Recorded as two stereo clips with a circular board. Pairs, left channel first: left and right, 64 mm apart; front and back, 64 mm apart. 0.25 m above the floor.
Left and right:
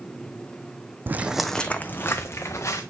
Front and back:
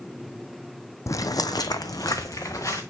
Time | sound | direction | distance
1.1 | footsteps | 35° right | 0.5 m